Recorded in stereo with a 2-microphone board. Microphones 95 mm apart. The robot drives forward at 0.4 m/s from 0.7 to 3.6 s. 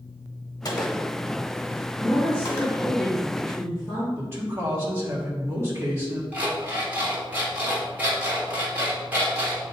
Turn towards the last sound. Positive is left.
turn(degrees=-20)  # may be behind; listen again after turning